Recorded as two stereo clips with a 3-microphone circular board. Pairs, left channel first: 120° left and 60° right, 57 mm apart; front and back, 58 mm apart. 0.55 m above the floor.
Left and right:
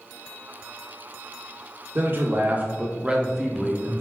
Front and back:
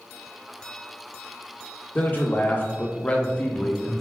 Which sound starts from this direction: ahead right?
A man speaking, at 1.9 s.